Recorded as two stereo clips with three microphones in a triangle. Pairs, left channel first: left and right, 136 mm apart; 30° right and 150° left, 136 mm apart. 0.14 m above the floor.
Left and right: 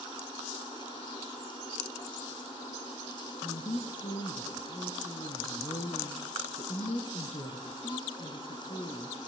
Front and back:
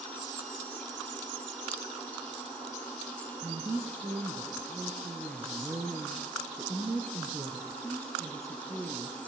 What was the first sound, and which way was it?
A woman speaking, 95° left.